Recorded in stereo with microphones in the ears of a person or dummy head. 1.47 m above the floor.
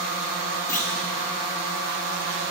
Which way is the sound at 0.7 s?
15° left (ahead or behind).